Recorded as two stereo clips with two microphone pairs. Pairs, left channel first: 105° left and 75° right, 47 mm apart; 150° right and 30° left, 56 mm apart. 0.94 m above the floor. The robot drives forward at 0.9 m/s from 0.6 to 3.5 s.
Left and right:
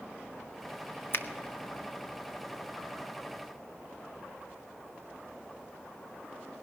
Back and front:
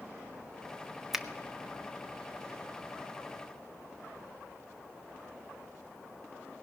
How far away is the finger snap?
About 0.8 m.